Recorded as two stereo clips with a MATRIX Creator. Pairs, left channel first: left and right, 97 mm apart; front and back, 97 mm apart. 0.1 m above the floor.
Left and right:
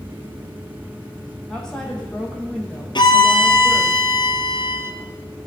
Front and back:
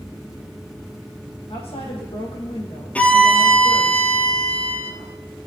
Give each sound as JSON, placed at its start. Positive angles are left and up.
{"t": 1.5, "sound": "a woman speaking", "azimuth_deg": 5, "distance_m": 3.0}
{"t": 3.0, "sound": "a violin", "azimuth_deg": 75, "distance_m": 1.1}